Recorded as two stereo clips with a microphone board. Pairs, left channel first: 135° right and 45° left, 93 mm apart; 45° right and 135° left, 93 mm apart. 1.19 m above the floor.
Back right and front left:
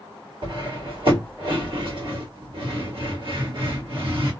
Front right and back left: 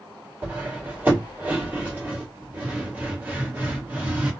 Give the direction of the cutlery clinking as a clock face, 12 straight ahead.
10 o'clock.